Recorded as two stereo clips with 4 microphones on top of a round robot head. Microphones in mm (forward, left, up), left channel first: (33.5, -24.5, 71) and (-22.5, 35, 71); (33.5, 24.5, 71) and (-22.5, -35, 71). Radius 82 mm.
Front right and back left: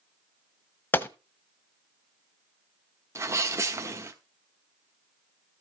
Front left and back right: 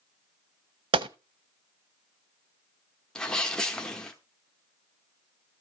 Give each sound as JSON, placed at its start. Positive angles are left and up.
{"t": 0.9, "sound": "a gunshot", "azimuth_deg": -115, "distance_m": 0.8}
{"t": 3.1, "sound": "a sneeze", "azimuth_deg": 120, "distance_m": 1.2}